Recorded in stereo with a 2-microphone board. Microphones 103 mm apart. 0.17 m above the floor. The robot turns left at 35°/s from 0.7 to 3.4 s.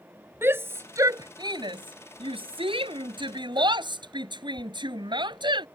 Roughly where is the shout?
Right.